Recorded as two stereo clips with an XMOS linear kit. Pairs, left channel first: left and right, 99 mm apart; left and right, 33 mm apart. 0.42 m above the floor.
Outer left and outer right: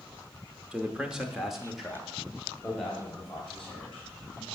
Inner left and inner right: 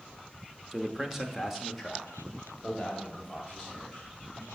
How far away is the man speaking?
About 1.0 m.